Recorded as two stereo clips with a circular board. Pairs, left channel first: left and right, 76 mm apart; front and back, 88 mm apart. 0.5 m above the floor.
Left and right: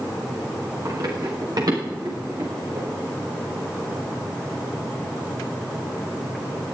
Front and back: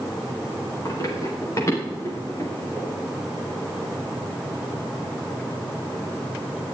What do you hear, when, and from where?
0.8 s running footsteps: 50° right, 6.5 m; by 2.9 s 60° right, 7.5 m